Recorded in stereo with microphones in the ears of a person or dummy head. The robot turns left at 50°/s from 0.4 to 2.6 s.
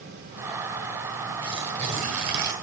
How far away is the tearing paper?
About 1.3 m.